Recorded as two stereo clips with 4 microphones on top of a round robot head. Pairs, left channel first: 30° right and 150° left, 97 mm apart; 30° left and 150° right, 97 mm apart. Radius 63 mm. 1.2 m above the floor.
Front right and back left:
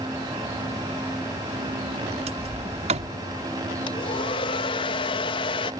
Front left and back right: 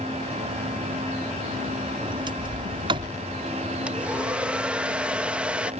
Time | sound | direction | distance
2.0 | a sliding door | 170° left | ?
3.9 | a hair dryer | 70° right | ?